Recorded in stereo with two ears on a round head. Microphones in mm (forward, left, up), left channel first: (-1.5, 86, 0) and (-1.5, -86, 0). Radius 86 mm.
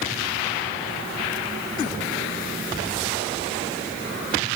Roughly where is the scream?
No scream in this recording.